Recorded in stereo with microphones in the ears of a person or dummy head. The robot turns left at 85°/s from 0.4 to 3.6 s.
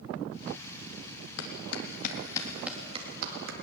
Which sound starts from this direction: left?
A clap, at 1.4 s.